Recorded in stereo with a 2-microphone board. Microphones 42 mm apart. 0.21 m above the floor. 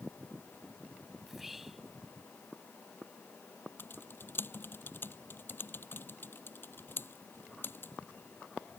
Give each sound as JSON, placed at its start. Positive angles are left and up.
{"t": 1.2, "sound": "whispering", "side_deg": -5}
{"t": 3.8, "sound": "typing on a keyboard", "side_deg": 55}